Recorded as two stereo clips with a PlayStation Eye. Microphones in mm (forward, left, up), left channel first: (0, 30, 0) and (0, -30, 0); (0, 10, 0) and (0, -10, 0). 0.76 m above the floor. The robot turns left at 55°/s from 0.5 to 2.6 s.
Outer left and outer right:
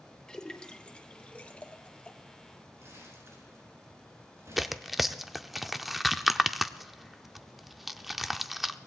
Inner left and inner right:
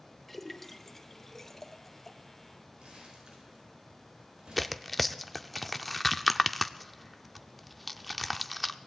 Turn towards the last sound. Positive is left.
turn(degrees=-5)  # may be behind; listen again after turning